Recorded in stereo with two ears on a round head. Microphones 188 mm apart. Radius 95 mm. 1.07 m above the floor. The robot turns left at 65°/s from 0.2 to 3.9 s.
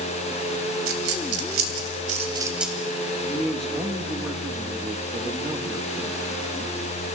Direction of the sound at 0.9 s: 60° right (ahead or behind).